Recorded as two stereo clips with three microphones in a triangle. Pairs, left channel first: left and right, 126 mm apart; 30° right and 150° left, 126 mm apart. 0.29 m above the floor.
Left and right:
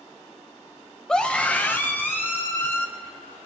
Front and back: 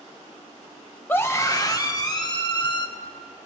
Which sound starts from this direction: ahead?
A scream, at 1.1 s.